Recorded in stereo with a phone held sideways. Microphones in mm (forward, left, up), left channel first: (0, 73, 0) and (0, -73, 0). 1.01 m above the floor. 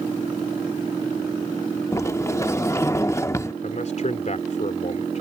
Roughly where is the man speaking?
Left.